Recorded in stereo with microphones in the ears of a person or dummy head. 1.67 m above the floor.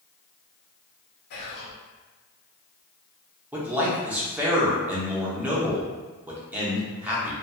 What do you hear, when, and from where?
1.3 s whispering: 60° left (ahead or behind), 0.8 m
3.5 s a man speaking: 10° right (ahead or behind), 1.0 m